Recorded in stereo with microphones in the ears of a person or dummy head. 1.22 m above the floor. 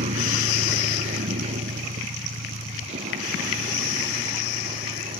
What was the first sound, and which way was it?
A vehicle, 40° right (ahead or behind).